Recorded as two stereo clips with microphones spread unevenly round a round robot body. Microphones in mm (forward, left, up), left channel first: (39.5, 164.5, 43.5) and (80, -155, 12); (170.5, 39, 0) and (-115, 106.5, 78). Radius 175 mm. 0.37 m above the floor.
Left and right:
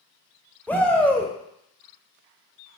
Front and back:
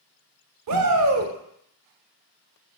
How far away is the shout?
About 1.1 m.